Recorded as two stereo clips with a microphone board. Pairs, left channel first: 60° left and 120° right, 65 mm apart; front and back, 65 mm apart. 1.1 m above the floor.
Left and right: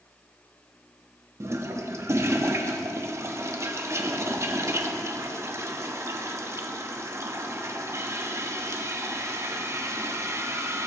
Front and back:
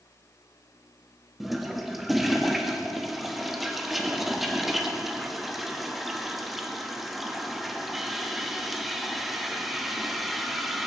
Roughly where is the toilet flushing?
Right.